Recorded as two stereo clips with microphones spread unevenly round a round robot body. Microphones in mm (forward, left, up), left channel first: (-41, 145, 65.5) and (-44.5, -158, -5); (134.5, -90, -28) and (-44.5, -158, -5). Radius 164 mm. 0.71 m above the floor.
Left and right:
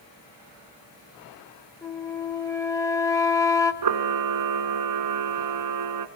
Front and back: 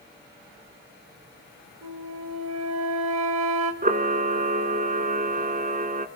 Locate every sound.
1.8 s a flute: 170° left, 1.4 m
3.8 s a camera shutter: 115° right, 1.7 m